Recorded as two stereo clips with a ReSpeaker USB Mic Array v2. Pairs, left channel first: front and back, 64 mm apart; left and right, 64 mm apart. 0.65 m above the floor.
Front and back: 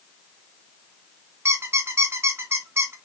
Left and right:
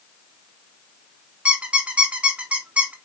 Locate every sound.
1.4 s a squeak: 150° right, 0.7 m